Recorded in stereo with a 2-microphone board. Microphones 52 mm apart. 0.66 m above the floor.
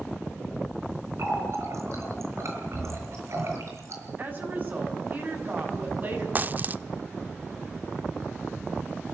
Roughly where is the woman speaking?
Right.